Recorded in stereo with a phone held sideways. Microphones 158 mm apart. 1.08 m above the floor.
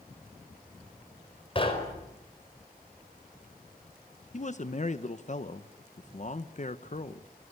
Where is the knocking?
35° left (ahead or behind), 4.5 m.